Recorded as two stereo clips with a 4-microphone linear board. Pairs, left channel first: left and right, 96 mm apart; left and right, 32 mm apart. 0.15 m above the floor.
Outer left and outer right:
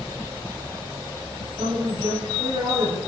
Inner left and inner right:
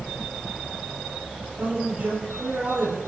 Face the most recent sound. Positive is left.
turn(degrees=-65)  # may be behind; listen again after turning